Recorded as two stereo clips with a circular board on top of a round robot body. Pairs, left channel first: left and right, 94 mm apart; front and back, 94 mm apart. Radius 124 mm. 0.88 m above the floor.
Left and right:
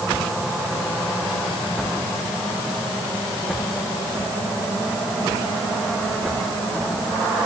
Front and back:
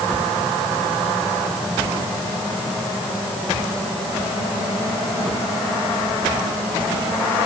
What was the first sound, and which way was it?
Only background noise.